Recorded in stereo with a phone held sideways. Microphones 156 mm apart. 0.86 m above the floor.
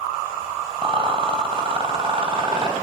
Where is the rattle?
35° right (ahead or behind), 3 m.